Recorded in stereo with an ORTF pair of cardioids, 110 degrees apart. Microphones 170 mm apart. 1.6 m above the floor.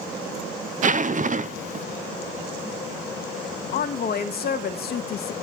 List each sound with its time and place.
0.8 s a zipper: 45° right, 0.7 m
3.7 s a woman speaking: 60° left, 2 m